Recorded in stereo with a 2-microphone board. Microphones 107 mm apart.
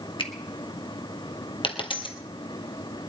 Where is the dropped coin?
55° left (ahead or behind), 1.7 m.